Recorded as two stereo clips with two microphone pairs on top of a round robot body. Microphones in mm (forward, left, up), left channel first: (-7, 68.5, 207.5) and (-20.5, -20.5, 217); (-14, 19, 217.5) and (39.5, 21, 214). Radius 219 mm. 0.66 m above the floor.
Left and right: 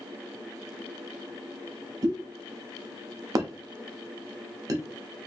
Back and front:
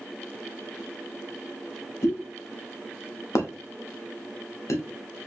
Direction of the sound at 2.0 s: 150° right.